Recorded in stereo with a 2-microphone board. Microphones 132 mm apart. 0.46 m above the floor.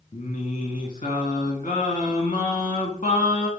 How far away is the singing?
About 0.9 m.